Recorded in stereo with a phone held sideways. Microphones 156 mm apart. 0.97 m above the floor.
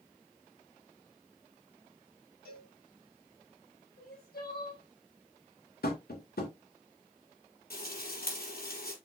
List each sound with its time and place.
2.5 s a cowbell: 80° left, 3 m
4.0 s crying: 90° left, 3.5 m
5.8 s tapping: 80° left, 2.5 m
7.7 s frying: 75° left (ahead or behind), 4.5 m